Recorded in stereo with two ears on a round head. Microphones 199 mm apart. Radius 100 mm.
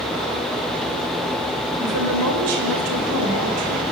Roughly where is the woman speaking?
Right.